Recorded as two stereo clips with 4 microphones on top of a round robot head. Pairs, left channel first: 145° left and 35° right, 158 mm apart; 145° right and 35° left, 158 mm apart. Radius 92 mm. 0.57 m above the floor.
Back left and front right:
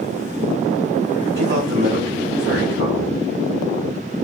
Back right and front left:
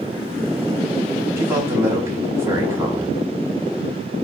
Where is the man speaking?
35° right, 5.5 m.